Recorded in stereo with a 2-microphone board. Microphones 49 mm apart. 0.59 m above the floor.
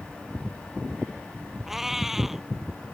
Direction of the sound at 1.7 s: 5° right (ahead or behind).